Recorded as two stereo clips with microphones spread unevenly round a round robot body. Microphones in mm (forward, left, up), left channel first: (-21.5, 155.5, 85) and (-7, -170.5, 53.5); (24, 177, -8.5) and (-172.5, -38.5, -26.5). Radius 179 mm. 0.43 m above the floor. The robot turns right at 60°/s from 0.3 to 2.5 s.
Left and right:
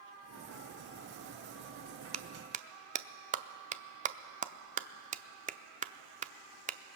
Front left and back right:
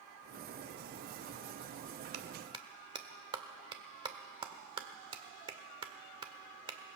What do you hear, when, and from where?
2.1 s a clap: 110° right, 0.5 m; by 7.0 s 90° right, 0.5 m